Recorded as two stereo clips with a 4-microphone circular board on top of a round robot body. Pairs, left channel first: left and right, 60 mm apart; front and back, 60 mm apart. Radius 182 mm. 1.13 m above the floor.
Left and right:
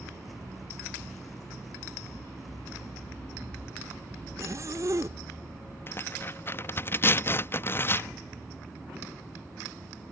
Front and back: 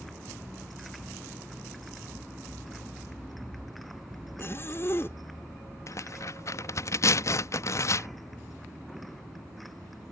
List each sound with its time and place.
4.4 s a zipper: 50° right
5.9 s tearing paper: 35° left